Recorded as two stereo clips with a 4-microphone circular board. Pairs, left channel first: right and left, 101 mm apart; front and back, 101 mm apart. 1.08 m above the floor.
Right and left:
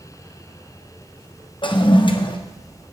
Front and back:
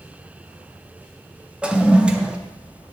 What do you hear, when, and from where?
1.6 s a toilet flushing: 100° right, 0.6 m